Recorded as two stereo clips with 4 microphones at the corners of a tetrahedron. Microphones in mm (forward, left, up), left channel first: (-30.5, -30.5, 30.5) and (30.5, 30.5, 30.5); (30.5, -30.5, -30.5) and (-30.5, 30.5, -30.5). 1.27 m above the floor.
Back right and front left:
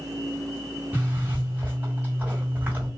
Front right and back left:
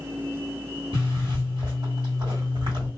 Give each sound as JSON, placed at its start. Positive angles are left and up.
{"t": 0.9, "sound": "a zipper", "azimuth_deg": 115, "distance_m": 1.7}